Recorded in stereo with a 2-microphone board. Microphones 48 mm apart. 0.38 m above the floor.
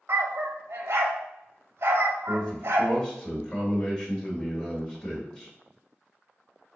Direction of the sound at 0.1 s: 65° right (ahead or behind).